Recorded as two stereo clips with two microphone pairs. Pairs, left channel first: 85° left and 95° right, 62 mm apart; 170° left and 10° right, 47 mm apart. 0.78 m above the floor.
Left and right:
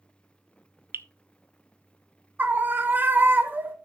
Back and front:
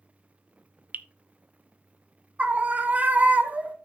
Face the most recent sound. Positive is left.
turn(degrees=-50)